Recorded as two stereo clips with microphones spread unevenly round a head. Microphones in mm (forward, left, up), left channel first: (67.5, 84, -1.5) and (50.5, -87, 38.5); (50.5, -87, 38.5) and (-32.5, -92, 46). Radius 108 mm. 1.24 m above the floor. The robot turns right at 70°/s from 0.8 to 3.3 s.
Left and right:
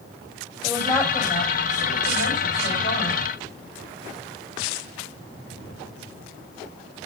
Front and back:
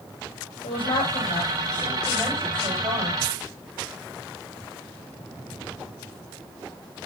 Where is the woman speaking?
Straight ahead, 6 m; by 3.2 s 170° left, 6 m.